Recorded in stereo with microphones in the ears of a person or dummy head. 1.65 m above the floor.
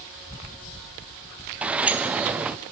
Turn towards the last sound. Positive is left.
turn(degrees=-5)  # may be behind; listen again after turning